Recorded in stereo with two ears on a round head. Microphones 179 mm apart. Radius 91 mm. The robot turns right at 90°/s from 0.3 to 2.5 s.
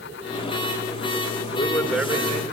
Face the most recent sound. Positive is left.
turn(degrees=-130)